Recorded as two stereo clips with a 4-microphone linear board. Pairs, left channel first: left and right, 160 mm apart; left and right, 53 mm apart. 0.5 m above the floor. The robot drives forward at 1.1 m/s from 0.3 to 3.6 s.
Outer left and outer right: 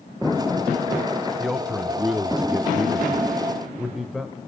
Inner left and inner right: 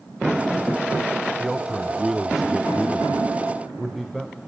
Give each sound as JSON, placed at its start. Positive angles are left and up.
{"t": 1.4, "sound": "a man speaking", "side_deg": 0, "distance_m": 1.2}